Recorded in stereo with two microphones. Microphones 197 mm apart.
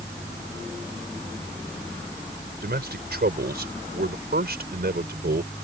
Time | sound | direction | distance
2.6 | a man speaking | 55° right (ahead or behind) | ?